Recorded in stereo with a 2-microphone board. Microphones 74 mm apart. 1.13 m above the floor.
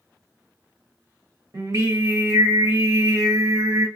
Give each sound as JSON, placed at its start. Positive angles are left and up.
{"t": 1.5, "sound": "singing", "side_deg": -50, "distance_m": 1.2}